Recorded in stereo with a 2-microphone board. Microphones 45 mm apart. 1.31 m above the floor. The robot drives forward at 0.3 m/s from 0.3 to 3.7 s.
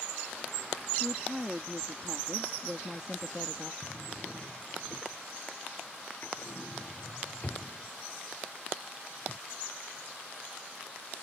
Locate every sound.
1.0 s a woman speaking: 15° right (ahead or behind); by 3.7 s 20° right (ahead or behind)
3.8 s a drawer: 40° left (ahead or behind)